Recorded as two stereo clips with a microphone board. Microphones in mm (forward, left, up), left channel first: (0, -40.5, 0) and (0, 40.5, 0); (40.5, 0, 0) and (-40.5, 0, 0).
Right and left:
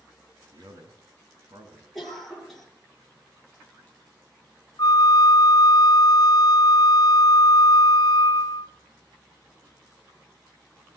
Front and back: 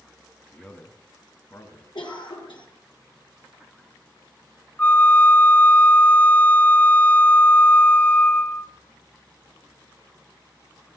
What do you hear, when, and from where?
0.5 s a man speaking: 75° left, 2.5 m; by 1.9 s 55° left, 3.5 m
1.9 s a cough: straight ahead, 6.5 m
4.8 s a flute: 70° right, 1.0 m